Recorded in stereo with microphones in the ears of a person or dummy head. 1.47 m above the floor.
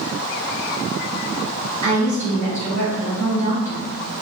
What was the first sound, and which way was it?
A woman speaking, 40° right (ahead or behind).